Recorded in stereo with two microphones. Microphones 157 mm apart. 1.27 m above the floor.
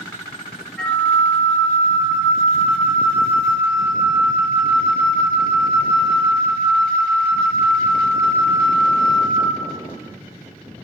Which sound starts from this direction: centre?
A flute, at 0.8 s.